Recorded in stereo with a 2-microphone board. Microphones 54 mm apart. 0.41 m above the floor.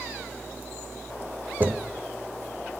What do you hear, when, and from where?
1.6 s footsteps: 40° right (ahead or behind), 0.8 m